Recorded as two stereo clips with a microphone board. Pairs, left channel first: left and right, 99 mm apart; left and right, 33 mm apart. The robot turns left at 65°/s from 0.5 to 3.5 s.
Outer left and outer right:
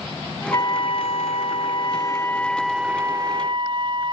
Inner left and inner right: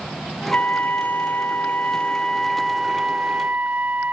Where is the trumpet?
140° left; by 4.1 s 55° right.